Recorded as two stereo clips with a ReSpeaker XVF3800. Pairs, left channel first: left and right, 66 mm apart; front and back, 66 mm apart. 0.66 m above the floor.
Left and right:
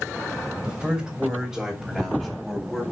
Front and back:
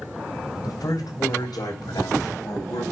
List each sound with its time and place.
0.6 s a man speaking: 15° right, 3 m; by 2.8 s 10° left, 3 m